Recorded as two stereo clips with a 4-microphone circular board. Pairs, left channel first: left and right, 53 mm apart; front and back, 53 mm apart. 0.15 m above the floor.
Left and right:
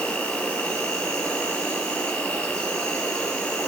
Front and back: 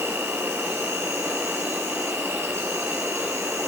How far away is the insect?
About 2.5 m.